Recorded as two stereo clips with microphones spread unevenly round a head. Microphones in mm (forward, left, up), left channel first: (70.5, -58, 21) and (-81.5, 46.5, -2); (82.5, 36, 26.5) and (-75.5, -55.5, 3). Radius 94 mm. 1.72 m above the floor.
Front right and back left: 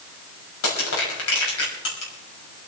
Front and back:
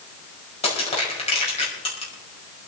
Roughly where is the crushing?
Ahead right.